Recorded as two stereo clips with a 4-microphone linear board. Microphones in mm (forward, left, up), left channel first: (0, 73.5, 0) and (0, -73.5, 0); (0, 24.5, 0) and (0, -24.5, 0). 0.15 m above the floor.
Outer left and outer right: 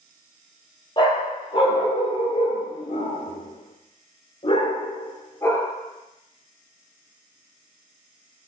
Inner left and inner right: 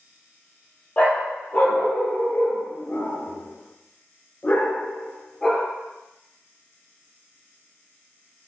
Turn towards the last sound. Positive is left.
turn(degrees=15)  # may be behind; listen again after turning